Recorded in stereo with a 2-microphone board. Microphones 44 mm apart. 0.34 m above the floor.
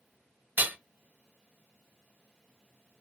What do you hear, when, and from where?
0.6 s hammering: 45° right (ahead or behind), 0.5 m